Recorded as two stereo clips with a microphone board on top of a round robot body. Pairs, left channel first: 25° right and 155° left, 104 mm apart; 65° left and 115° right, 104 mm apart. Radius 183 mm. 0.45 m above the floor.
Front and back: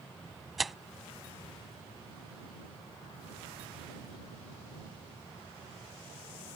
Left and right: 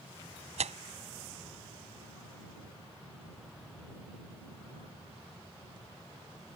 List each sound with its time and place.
0.6 s tearing paper: 115° right